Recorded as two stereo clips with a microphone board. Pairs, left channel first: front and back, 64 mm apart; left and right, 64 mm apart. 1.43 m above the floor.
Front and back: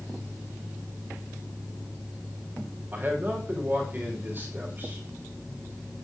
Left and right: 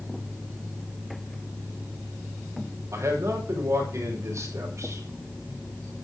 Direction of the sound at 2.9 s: 125° right.